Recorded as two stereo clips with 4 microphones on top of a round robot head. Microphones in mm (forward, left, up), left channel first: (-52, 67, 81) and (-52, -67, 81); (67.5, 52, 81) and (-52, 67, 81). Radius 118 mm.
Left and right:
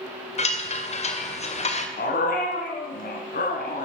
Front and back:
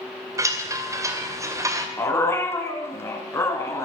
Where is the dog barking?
60° left, 2.5 m.